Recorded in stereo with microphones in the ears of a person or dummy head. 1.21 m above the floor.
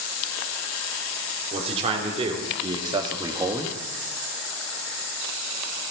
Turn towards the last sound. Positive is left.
turn(degrees=-5)  # may be behind; listen again after turning